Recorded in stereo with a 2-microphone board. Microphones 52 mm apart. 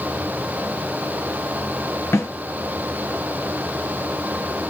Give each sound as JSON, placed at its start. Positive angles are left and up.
{"t": 2.1, "sound": "a snare drum", "side_deg": 65, "distance_m": 3.0}